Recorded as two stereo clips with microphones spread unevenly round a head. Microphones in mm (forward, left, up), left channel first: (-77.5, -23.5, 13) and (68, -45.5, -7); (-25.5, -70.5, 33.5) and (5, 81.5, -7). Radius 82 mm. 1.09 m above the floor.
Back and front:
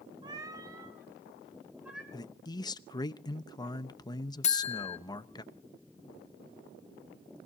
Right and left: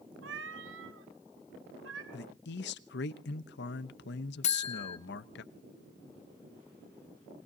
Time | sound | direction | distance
0.2 | a cat meowing | 60° left | 1.8 m
2.1 | a man speaking | 125° right | 1.0 m
4.4 | a buzzer | 150° right | 1.1 m